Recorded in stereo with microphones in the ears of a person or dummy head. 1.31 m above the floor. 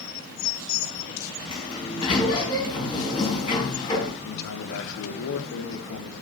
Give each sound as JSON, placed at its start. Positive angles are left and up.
{"t": 1.5, "sound": "a sliding door", "side_deg": 25, "distance_m": 4.5}
{"t": 4.2, "sound": "a man speaking", "side_deg": 75, "distance_m": 2.5}